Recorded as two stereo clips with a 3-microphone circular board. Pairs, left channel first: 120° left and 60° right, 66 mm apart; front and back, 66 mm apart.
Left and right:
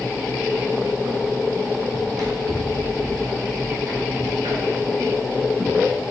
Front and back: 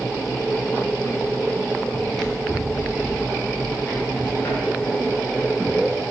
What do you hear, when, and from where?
1.9 s running footsteps: 90° right, 1.6 m; by 5.8 s 55° right, 3.5 m